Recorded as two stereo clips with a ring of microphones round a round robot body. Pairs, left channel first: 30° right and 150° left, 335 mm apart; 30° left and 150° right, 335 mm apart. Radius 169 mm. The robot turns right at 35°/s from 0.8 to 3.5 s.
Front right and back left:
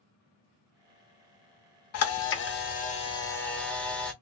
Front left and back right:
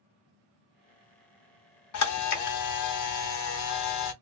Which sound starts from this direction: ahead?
A camera shutter, at 1.9 s.